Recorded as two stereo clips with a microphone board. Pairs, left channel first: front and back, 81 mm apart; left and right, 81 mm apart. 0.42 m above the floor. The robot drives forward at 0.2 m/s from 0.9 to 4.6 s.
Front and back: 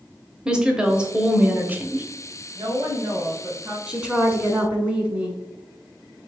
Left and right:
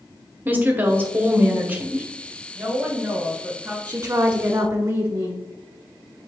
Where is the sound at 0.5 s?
115° right, 0.8 m; by 2.1 s 140° right, 0.9 m.